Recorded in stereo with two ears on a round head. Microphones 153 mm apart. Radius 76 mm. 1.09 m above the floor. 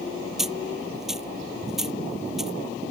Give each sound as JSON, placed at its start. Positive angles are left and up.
{"t": 0.4, "sound": "a dropped coin", "side_deg": -5}